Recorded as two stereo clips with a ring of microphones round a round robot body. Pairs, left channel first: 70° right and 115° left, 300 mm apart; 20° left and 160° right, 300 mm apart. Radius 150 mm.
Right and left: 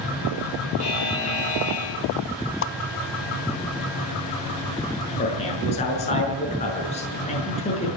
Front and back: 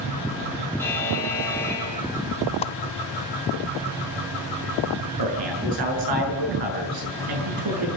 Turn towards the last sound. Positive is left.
turn(degrees=-140)